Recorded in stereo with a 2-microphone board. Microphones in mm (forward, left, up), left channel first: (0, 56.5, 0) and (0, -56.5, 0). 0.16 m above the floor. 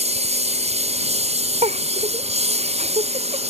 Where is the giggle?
75° right (ahead or behind).